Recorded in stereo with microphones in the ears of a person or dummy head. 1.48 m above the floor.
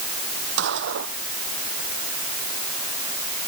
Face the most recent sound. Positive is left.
turn(degrees=-65)  # may be behind; listen again after turning